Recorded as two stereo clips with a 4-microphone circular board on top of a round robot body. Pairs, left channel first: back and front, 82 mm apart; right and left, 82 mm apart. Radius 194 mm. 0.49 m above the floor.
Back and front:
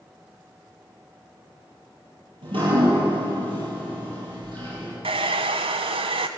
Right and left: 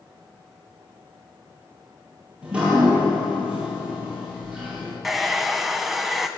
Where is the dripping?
15° left, 9.5 m.